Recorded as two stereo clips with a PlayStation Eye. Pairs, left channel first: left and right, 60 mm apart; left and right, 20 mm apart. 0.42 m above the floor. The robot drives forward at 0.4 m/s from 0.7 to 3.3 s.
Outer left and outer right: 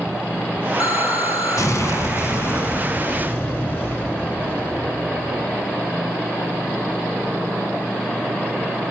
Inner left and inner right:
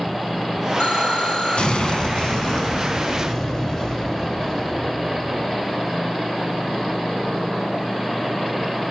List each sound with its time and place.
0.8 s an explosion: 70° left (ahead or behind), 0.6 m; by 5.7 s 30° left (ahead or behind), 1.1 m